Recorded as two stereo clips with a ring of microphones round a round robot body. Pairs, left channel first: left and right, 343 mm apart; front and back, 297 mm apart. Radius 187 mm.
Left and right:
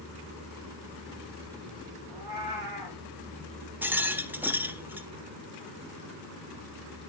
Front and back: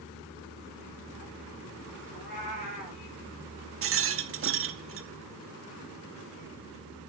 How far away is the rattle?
About 1.0 m.